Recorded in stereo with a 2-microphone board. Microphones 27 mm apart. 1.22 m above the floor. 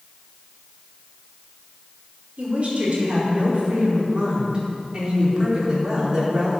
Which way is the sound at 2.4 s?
45° right (ahead or behind).